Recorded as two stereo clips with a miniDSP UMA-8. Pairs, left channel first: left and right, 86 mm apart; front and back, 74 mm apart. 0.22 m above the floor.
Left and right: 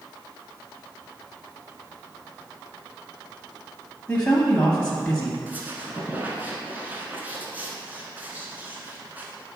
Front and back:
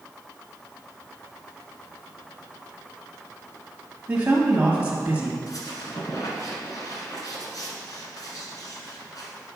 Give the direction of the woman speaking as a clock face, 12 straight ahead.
7 o'clock.